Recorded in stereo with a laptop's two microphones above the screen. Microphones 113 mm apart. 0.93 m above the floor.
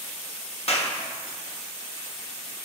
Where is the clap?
60° left (ahead or behind), 1.4 m.